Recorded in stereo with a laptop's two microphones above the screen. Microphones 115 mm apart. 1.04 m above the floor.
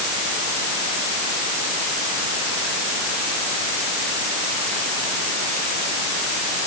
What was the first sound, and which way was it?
Only background noise.